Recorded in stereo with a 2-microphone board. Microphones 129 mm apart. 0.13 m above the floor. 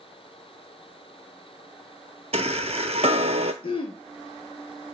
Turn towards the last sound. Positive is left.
turn(degrees=45)  # may be behind; listen again after turning